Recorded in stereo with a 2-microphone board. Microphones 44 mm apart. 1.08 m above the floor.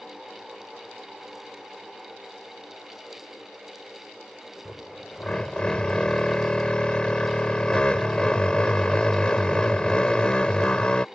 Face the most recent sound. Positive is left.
turn(degrees=20)  # may be behind; listen again after turning